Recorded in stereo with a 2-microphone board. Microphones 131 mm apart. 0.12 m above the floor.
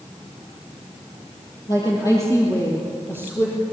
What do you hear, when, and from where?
1.7 s a woman speaking: 30° left (ahead or behind), 3.5 m; by 3.6 s 20° left (ahead or behind), 4.5 m